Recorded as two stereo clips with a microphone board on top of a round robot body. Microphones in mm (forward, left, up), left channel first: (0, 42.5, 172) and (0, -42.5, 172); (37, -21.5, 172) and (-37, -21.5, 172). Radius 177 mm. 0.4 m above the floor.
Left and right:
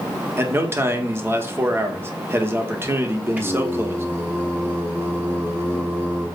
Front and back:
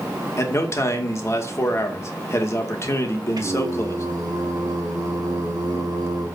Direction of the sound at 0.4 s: 35° right.